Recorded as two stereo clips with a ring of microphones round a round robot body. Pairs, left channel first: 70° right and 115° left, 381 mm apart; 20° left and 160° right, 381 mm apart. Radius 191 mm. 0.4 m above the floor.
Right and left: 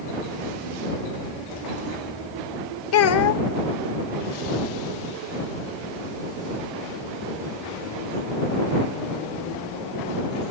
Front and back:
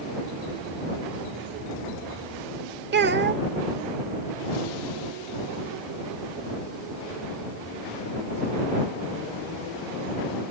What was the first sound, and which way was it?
A child speaking, 105° right.